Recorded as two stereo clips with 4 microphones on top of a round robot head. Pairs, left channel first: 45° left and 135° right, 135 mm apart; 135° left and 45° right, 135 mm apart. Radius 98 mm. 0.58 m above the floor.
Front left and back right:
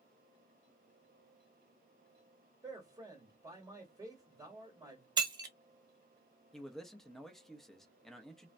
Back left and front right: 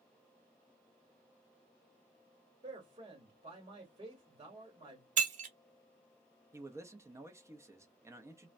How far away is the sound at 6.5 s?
About 0.7 m.